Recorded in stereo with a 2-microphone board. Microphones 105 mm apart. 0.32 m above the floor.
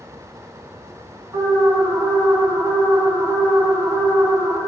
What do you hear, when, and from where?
1.3 s an alarm: 35° right (ahead or behind), 3 m